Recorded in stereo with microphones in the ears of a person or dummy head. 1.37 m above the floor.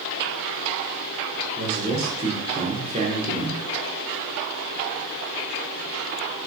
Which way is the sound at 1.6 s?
40° right (ahead or behind).